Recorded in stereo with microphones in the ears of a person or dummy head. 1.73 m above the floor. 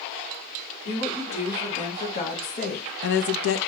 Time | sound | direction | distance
0.8 | a woman speaking | 30° left (ahead or behind) | 1.9 m